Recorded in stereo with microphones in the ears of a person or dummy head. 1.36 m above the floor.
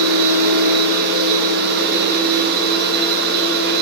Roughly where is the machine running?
Right.